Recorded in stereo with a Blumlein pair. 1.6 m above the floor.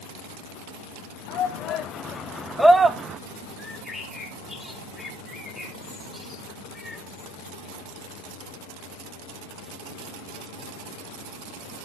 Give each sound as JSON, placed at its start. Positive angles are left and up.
{"t": 1.3, "sound": "a shout", "azimuth_deg": 35, "distance_m": 1.2}
{"t": 3.6, "sound": "a bird", "azimuth_deg": 0, "distance_m": 2.0}